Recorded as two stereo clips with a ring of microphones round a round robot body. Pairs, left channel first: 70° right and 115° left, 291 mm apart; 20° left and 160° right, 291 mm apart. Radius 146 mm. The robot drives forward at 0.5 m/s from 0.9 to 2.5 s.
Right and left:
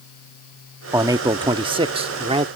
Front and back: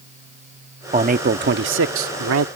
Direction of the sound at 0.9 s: 175° left.